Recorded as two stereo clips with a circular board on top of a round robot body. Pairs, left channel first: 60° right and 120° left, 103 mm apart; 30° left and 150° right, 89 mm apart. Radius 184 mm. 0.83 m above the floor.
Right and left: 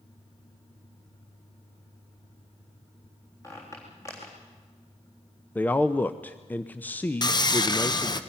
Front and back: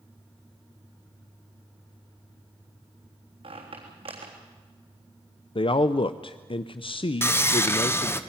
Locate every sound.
3.4 s a squeak: 125° right, 3.5 m
5.5 s a man speaking: 15° left, 0.7 m
7.2 s sawing: 25° right, 1.3 m